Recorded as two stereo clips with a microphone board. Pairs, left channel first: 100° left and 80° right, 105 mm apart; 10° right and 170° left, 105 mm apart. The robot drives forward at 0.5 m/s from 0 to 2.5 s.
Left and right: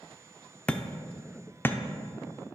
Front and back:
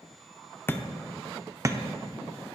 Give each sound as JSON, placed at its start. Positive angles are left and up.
{"t": 0.7, "sound": "hammering", "azimuth_deg": 30, "distance_m": 0.5}